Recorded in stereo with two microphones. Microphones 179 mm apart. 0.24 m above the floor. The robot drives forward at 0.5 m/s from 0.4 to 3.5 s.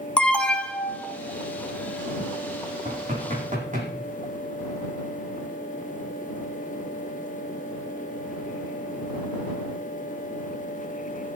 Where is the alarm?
5° left (ahead or behind), 1.6 m.